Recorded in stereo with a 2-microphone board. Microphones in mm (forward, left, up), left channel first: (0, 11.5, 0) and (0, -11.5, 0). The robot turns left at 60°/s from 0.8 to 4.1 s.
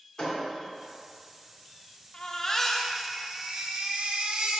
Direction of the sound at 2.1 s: 45° left.